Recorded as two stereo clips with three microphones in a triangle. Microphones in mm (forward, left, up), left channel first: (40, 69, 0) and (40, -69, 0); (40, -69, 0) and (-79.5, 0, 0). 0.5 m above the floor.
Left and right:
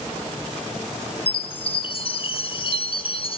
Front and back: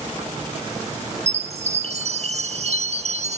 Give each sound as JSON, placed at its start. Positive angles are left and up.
{"t": 1.3, "sound": "a chime", "azimuth_deg": 130, "distance_m": 1.0}